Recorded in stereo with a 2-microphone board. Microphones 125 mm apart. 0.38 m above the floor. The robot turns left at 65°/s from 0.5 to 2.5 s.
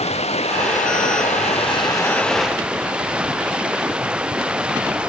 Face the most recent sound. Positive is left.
turn(degrees=-10)